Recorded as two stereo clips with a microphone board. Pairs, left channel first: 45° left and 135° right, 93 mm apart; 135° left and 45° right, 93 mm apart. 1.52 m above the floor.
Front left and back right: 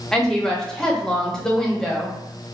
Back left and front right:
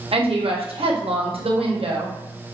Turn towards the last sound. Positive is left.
turn(degrees=-40)